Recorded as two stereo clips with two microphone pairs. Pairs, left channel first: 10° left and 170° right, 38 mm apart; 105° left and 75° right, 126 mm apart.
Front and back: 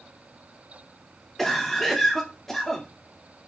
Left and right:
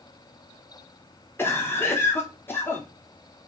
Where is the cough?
90° left, 0.7 m.